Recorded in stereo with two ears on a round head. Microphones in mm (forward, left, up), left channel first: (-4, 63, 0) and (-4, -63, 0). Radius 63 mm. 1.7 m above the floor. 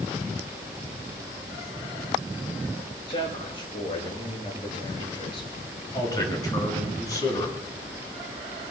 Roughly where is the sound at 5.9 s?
Left.